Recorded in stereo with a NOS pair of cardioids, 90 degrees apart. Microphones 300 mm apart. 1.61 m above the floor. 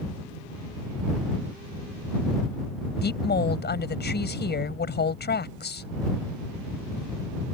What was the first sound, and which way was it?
A woman speaking, 35° left.